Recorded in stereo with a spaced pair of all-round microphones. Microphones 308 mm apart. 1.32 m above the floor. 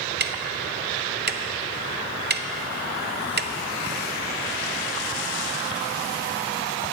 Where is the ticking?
35° right (ahead or behind), 0.5 m.